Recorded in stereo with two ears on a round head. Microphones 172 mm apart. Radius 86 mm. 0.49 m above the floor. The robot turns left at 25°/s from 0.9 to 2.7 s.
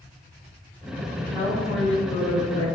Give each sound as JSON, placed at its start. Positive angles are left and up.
{"t": 1.1, "sound": "a woman speaking", "azimuth_deg": -175, "distance_m": 2.0}